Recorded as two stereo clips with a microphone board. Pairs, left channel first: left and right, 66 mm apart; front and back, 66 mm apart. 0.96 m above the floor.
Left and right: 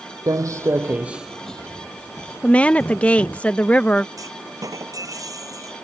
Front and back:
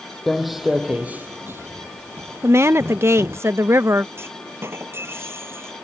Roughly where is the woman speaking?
Behind left.